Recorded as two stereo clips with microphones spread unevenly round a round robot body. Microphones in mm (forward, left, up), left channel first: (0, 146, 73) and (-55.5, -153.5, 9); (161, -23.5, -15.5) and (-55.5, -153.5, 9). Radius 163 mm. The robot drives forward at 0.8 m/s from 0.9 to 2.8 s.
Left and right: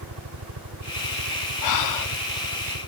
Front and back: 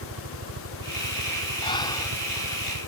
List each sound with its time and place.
0.0 s a helicopter: 130° right; by 2.9 s 135° right
1.6 s breathing: 100° left; by 2.1 s 110° left